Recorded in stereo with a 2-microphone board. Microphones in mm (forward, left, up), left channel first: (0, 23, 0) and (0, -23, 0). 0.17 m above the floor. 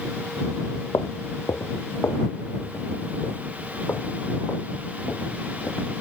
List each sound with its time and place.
0.9 s footsteps: 85° left; by 6.0 s 45° left (ahead or behind)